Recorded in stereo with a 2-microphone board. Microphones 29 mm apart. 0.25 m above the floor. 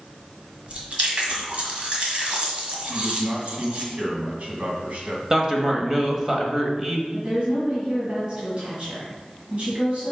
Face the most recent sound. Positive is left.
turn(degrees=-45)  # may be behind; listen again after turning